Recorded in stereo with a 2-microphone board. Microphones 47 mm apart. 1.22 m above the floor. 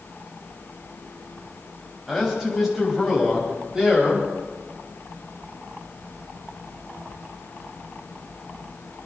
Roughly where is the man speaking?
Centre.